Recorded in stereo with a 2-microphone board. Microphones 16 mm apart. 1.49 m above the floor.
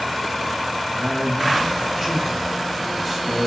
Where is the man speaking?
5° right (ahead or behind), 8 m.